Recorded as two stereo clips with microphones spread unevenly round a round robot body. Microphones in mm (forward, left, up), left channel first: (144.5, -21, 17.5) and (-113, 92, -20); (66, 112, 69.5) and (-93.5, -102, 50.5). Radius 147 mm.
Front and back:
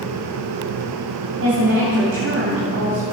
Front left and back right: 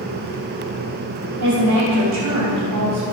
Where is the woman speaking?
150° right, 4.5 m.